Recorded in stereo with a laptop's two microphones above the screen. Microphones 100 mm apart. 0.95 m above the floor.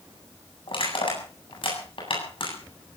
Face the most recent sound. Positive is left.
turn(degrees=60)  # may be behind; listen again after turning